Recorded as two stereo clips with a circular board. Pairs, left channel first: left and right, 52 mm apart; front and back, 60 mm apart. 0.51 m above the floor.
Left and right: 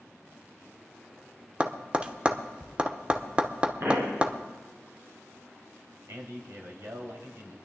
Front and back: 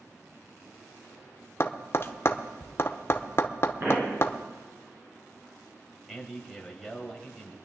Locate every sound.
1.6 s tapping: 30° right, 0.8 m
3.8 s a pop: 125° right, 4 m
6.1 s a man speaking: 95° right, 2.5 m